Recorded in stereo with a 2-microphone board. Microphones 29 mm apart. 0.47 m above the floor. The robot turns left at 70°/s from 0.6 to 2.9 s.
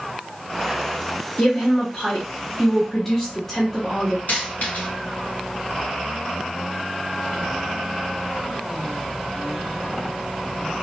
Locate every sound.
1.4 s a woman speaking: 120° left, 1.0 m; by 4.2 s 15° left, 1.0 m
4.3 s a dropped coin: 70° left (ahead or behind), 1.6 m